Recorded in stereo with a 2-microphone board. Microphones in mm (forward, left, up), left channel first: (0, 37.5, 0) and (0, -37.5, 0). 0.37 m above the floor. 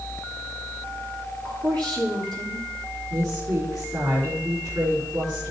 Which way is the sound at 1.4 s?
80° right.